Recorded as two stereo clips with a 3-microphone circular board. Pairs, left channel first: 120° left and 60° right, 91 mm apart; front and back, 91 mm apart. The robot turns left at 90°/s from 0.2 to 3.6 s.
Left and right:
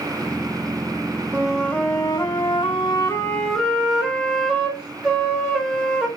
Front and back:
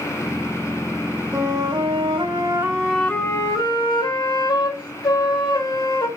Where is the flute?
130° right, 2.0 m; by 6.1 s 25° left, 2.0 m.